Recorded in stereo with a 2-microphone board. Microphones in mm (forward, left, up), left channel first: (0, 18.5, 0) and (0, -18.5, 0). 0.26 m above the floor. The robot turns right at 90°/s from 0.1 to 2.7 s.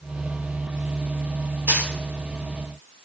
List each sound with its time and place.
1.7 s a dropped coin: 85° right, 6.5 m; by 1.9 s 65° right (ahead or behind), 6.5 m